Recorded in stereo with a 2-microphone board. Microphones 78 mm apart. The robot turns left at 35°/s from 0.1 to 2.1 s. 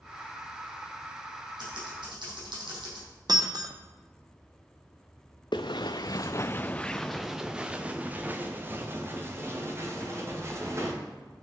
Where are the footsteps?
80° left, 0.7 m; by 10.9 s 40° right (ahead or behind), 2.5 m.